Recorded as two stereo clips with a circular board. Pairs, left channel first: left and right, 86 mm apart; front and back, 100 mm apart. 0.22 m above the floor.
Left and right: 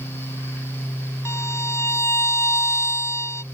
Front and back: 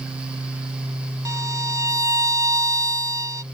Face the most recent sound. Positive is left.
turn(degrees=135)